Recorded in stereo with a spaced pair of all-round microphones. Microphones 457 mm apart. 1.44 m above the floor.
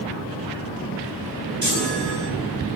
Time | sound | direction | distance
1.6 | a chime | 40° right (ahead or behind) | 9 m